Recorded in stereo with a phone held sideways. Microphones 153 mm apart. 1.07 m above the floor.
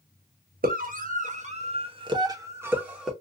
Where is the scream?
70° right (ahead or behind), 1.2 m; by 3.1 s 5° right (ahead or behind), 1.1 m.